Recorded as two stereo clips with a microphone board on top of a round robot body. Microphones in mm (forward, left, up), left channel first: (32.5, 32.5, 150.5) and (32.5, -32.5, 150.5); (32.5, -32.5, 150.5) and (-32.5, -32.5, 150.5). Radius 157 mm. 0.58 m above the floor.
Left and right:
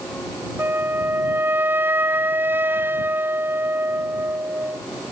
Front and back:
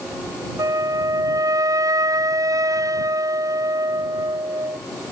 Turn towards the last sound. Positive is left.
turn(degrees=-150)